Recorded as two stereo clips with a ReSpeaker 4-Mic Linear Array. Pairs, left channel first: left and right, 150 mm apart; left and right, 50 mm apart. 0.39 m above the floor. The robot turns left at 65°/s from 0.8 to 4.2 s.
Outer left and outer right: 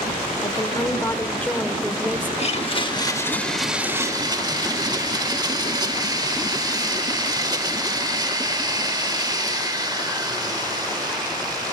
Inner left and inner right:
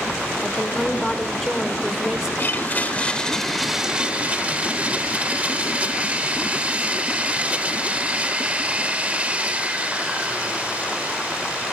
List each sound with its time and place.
0.4 s a woman speaking: 25° left (ahead or behind), 0.9 m; by 2.3 s 15° right (ahead or behind), 0.9 m
2.4 s a blender: 80° left, 0.7 m; by 11.7 s 40° right, 0.7 m